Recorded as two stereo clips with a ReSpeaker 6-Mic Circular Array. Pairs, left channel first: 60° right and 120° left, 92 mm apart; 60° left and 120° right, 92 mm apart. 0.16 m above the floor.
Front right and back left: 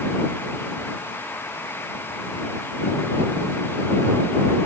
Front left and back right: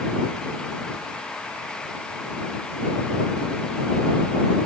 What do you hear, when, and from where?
Only background noise.